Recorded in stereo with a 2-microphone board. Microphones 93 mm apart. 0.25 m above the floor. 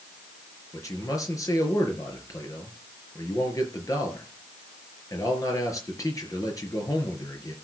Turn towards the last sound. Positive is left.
turn(degrees=40)  # may be behind; listen again after turning